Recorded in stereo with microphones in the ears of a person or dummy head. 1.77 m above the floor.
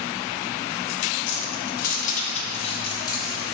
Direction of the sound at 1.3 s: 60° left (ahead or behind).